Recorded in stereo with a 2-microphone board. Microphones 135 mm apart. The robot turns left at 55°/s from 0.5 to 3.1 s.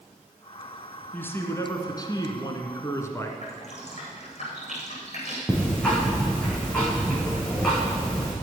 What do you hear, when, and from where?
1.1 s a man speaking: 155° left, 1.6 m; by 3.3 s 45° left, 1.6 m
3.4 s dripping: 55° left (ahead or behind), 4.5 m
5.5 s ticking: 5° left (ahead or behind), 4.5 m